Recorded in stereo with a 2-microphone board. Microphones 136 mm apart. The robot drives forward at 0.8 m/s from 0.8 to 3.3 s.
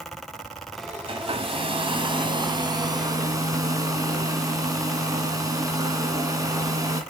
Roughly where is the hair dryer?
Right.